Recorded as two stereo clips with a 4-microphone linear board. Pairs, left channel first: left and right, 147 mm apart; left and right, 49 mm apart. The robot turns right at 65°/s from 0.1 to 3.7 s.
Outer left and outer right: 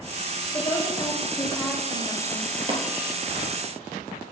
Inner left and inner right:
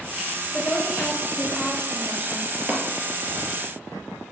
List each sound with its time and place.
0.5 s a woman speaking: 20° left (ahead or behind), 1.0 m; by 2.5 s 15° right (ahead or behind), 1.0 m
2.7 s tapping: 35° right (ahead or behind), 1.2 m; by 2.8 s 25° right (ahead or behind), 1.2 m